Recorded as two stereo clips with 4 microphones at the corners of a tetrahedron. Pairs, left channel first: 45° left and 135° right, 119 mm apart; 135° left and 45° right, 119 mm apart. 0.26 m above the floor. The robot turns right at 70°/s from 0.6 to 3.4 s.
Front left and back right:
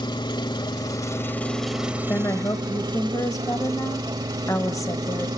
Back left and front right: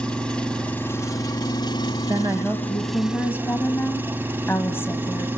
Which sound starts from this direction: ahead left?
An engine running, at 0.0 s.